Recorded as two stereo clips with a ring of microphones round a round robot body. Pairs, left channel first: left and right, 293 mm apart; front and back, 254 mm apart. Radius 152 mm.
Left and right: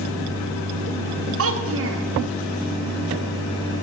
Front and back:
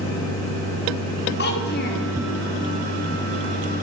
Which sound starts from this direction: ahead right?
A child speaking, at 1.4 s.